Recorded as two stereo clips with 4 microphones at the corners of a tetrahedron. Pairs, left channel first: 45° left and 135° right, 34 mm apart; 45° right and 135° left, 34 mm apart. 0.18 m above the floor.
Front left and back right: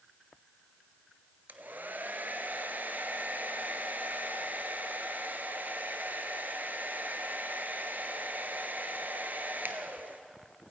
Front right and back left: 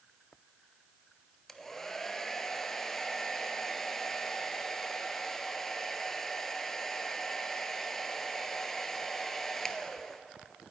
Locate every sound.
1.5 s a hair dryer: 125° right, 0.6 m